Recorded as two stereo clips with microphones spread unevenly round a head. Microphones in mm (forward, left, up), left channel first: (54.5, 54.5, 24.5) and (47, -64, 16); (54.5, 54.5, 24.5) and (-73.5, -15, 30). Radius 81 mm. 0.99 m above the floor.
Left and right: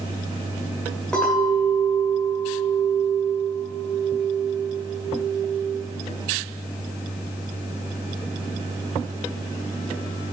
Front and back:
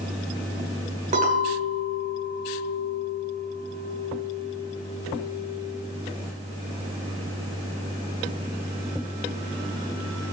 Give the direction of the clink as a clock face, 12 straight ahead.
6 o'clock.